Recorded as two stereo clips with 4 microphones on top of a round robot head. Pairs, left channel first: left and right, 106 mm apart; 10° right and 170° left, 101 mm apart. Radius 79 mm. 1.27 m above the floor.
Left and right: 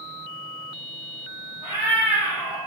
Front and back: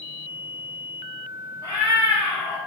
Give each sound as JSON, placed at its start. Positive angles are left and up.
{"t": 1.6, "sound": "a cat meowing", "azimuth_deg": -50, "distance_m": 0.7}